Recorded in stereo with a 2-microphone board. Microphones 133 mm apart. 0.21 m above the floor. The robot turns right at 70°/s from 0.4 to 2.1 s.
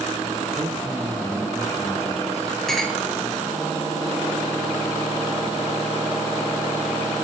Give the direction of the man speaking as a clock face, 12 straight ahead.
1 o'clock.